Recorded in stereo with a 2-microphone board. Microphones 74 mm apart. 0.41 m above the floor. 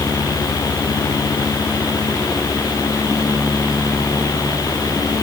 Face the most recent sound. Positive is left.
No sound to turn to.